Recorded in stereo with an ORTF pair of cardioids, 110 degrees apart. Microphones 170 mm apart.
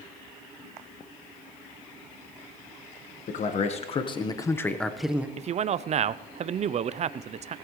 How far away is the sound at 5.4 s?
About 0.6 m.